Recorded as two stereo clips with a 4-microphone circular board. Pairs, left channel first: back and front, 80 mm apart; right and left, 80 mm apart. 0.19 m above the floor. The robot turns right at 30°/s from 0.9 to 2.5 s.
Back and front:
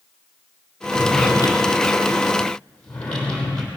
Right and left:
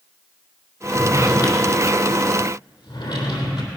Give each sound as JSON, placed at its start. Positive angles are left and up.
{"t": 0.9, "sound": "a drawer", "azimuth_deg": -150, "distance_m": 3.0}